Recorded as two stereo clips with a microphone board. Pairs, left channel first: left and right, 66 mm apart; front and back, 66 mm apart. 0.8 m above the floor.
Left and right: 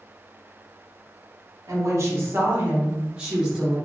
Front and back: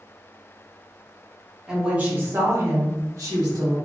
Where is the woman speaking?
100° right, 1.0 m; by 3.8 s 170° right, 1.4 m.